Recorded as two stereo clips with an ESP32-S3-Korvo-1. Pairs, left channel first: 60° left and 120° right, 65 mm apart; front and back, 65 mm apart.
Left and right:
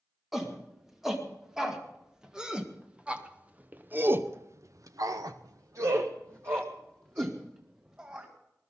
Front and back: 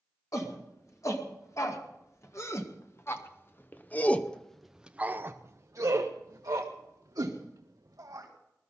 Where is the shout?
35° right, 3 m; by 8.3 s 175° left, 2 m.